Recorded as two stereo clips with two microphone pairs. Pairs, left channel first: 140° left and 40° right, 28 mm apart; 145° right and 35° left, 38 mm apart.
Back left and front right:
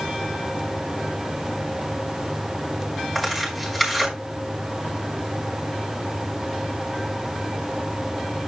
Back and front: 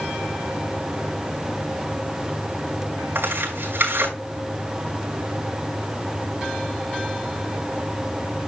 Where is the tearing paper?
55° left, 5 m.